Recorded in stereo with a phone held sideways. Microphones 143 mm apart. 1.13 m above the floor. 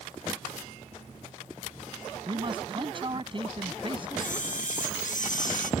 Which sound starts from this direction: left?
A camera shutter, at 4.2 s.